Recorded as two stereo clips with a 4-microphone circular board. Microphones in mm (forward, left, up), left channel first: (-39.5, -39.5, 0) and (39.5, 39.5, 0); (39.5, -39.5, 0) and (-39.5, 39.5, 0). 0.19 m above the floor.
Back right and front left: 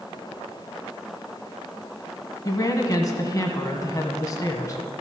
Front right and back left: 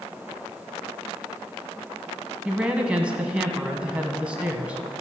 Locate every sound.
2.5 s a woman speaking: 155° right, 1.1 m